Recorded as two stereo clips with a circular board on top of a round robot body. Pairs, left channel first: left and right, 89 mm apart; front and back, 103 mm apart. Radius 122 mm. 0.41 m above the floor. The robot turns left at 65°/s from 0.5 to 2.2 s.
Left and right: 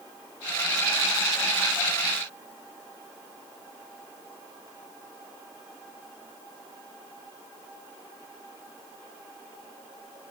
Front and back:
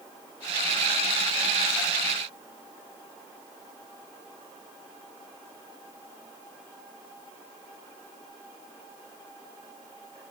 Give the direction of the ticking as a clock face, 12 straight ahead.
No ticking in this recording.